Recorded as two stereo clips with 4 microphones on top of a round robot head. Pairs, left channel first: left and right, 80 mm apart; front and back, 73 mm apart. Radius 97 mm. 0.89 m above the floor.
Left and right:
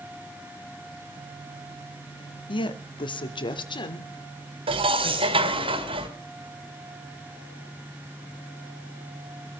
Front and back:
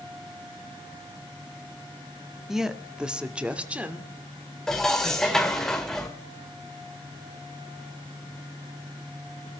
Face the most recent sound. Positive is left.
turn(degrees=-85)